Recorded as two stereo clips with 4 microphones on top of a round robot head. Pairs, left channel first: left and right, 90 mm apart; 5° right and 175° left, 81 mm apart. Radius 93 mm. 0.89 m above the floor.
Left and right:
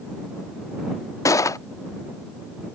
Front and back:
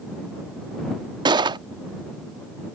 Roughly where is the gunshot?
Behind left.